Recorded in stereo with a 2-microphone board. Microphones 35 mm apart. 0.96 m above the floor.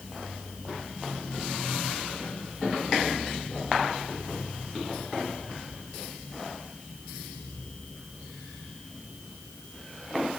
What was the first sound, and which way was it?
Only background noise.